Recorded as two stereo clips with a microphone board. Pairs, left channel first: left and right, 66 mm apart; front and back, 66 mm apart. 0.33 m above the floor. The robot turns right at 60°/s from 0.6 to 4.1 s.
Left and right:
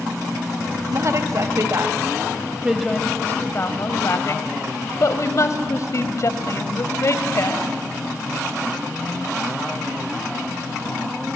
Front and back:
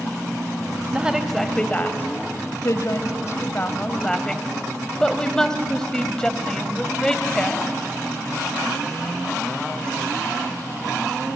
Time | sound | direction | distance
0.9 | a woman speaking | 115° right | 1.8 m